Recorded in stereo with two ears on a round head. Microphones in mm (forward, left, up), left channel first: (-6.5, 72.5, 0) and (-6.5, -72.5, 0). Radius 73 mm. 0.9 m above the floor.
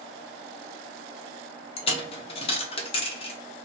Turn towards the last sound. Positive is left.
turn(degrees=35)  # may be behind; listen again after turning